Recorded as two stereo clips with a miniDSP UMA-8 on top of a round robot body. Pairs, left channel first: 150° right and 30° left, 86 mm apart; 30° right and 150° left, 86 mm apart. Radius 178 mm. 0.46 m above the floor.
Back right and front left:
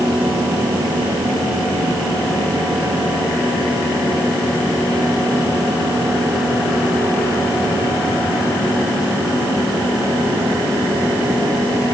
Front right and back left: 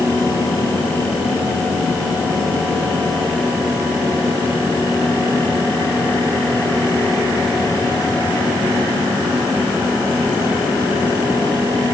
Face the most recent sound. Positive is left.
No sound to turn to.